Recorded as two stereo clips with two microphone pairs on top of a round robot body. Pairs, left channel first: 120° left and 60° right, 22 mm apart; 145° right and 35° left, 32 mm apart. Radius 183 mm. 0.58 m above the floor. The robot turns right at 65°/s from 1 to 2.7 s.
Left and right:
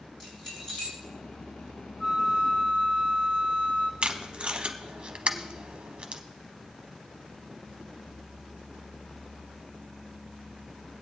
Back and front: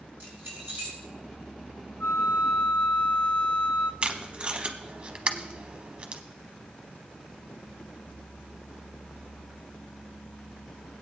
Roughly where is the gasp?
I don't hear a gasp.